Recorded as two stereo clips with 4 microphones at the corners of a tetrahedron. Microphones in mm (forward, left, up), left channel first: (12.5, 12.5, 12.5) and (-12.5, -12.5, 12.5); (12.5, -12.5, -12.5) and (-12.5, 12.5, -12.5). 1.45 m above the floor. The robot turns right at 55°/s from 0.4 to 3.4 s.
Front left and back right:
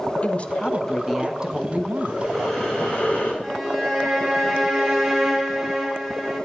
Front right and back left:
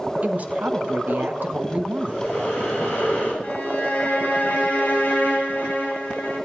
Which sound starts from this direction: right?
Breathing, at 2.0 s.